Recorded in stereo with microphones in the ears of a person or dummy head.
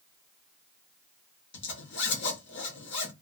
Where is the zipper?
50° left (ahead or behind), 0.9 m.